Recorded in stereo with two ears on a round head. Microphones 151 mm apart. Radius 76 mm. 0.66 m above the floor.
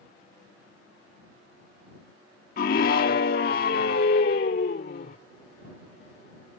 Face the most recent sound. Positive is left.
turn(degrees=55)  # may be behind; listen again after turning